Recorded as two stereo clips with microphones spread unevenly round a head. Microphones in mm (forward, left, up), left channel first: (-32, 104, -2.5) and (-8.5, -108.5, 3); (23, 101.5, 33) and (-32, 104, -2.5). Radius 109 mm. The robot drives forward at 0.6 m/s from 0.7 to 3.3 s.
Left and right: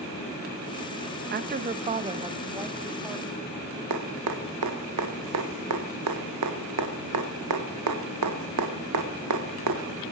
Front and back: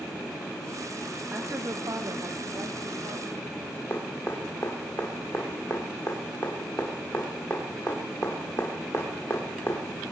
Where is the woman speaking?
130° right, 0.6 m; by 3.4 s 165° right, 1.6 m.